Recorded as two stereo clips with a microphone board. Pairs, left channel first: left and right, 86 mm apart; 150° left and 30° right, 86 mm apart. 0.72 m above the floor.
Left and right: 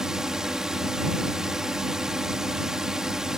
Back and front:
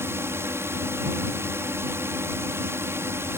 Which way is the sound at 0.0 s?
15° right.